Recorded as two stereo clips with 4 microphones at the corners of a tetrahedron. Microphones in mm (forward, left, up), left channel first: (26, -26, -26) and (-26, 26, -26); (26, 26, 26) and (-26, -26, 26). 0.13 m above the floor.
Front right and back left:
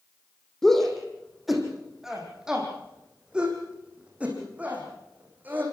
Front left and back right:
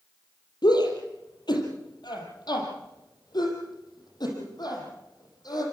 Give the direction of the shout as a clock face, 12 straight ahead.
11 o'clock.